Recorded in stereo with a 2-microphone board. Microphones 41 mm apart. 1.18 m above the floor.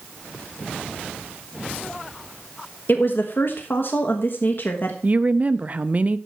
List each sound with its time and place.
2.9 s a woman speaking: 55° left (ahead or behind), 1.3 m
5.0 s a woman speaking: 35° right (ahead or behind), 0.6 m